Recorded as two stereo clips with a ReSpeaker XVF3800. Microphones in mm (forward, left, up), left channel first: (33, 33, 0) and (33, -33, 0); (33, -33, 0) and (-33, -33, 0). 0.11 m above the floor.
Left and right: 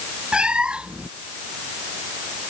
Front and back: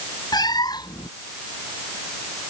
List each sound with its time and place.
0.3 s a cat meowing: 10° right